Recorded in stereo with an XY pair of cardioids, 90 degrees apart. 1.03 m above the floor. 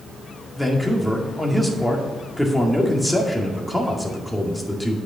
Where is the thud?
No thud in this recording.